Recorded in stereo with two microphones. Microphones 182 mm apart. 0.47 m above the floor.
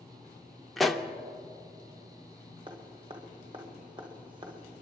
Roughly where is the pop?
Centre.